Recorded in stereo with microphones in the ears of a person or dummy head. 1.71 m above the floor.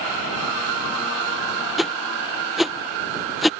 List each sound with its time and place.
1.8 s a whoosh: centre (ahead or behind)